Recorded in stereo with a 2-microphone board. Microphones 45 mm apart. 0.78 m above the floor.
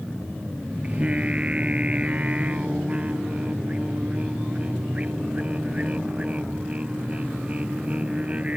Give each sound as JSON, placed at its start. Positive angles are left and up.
{"t": 0.8, "sound": "singing", "side_deg": -30}